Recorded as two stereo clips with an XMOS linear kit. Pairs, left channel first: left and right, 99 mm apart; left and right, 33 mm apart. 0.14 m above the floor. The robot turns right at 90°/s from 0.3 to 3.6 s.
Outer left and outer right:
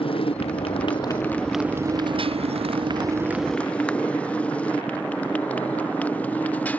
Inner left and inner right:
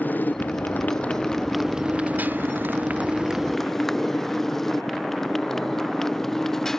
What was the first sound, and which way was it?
A motorcycle, 65° left (ahead or behind).